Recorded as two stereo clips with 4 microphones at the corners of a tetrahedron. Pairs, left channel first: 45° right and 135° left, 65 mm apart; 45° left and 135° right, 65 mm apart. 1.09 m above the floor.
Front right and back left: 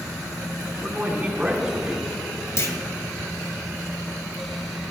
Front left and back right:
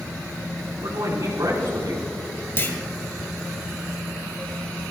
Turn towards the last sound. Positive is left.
turn(degrees=-5)